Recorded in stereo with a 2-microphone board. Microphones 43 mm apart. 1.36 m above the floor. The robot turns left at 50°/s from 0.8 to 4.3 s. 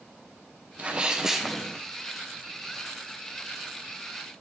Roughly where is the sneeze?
Behind right.